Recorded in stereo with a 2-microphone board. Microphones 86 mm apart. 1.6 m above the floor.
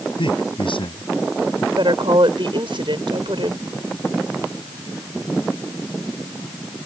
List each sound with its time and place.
0.2 s a man speaking: 75° left (ahead or behind)
1.8 s a woman speaking: 70° right (ahead or behind)